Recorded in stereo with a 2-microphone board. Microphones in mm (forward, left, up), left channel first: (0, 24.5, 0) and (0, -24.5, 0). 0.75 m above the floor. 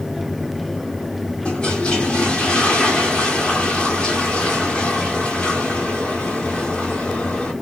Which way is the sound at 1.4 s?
20° left (ahead or behind).